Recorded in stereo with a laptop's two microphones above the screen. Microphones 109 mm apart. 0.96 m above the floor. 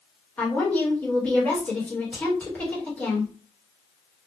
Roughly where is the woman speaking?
Centre.